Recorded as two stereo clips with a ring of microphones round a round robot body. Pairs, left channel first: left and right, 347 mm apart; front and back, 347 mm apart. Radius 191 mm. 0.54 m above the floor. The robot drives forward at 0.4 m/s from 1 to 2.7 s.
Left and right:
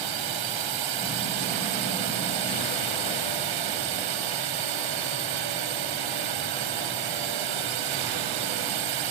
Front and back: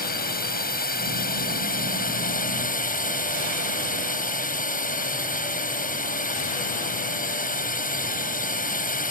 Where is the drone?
65° right.